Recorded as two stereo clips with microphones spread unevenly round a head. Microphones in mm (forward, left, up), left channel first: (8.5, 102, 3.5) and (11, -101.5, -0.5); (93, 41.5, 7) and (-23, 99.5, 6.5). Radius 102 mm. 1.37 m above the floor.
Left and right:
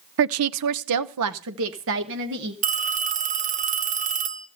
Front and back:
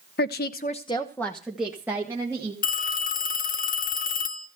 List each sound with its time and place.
0.2 s a woman speaking: 55° right, 0.7 m; by 2.5 s 130° right, 1.9 m
2.6 s a phone ringing: 35° right, 1.5 m